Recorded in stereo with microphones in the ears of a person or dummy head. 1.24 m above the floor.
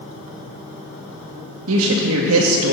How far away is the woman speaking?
About 0.7 m.